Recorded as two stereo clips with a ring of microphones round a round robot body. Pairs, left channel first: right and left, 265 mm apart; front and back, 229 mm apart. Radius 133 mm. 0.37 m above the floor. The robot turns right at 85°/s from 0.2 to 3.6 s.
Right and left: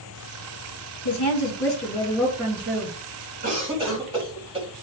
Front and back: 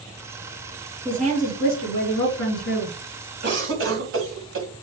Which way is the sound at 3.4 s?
145° left.